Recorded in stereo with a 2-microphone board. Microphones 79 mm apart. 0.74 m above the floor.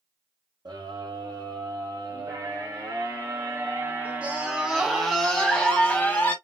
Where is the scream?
65° right (ahead or behind), 2.5 m; by 6.3 s 25° left (ahead or behind), 1.8 m.